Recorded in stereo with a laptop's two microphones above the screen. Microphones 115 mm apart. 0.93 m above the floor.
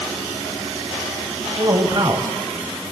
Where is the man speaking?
40° right (ahead or behind), 5.5 m.